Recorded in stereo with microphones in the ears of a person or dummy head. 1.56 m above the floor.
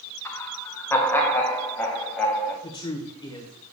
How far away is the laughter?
About 1.2 m.